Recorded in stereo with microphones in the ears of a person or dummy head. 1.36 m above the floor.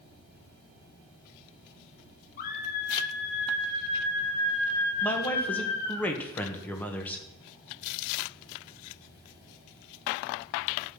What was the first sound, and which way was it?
A scream, 45° left (ahead or behind).